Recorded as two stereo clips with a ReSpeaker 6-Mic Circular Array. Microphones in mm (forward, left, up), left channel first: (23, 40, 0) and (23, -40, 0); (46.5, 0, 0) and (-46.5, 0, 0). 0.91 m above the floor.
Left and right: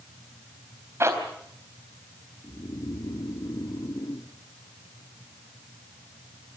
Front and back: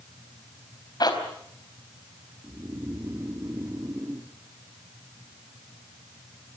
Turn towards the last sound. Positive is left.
turn(degrees=120)